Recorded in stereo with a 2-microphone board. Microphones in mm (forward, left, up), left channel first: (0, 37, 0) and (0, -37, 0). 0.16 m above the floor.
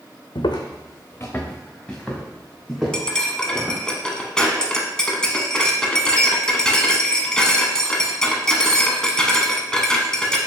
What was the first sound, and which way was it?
Footsteps, 80° left.